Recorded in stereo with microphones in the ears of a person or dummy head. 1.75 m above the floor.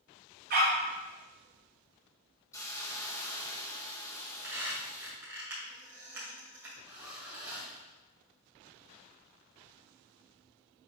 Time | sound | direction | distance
0.5 | a dog barking | 45° right (ahead or behind) | 1.8 m
2.5 | a hiss | 15° left (ahead or behind) | 0.8 m
4.1 | a squeak | 10° right (ahead or behind) | 2 m
6.9 | a zipper | 10° right (ahead or behind) | 2.5 m